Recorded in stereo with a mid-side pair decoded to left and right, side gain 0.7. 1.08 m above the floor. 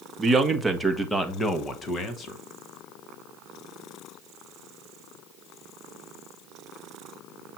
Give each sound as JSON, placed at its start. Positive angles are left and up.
{"t": 0.2, "sound": "a man speaking", "azimuth_deg": -20, "distance_m": 1.3}